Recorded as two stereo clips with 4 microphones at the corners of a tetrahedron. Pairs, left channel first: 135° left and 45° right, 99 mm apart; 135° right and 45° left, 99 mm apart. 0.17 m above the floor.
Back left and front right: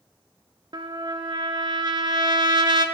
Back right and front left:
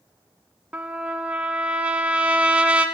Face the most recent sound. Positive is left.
turn(degrees=-30)